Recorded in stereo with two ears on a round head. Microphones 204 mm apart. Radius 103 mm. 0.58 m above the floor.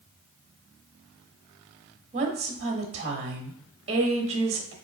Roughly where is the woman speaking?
Right.